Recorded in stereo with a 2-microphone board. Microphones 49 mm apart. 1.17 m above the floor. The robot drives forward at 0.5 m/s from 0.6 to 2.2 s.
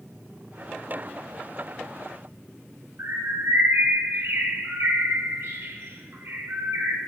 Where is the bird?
60° right (ahead or behind), 1.0 m.